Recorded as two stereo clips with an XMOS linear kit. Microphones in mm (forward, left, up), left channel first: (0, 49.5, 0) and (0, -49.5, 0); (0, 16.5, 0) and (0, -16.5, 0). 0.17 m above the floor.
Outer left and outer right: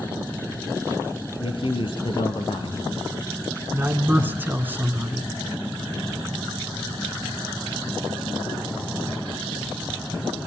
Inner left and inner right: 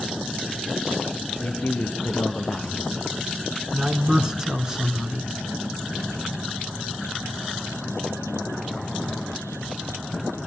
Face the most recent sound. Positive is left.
turn(degrees=-20)  # may be behind; listen again after turning